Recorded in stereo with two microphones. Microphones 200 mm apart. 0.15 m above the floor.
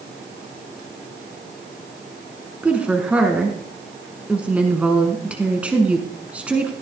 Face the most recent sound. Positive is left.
turn(degrees=-5)  # may be behind; listen again after turning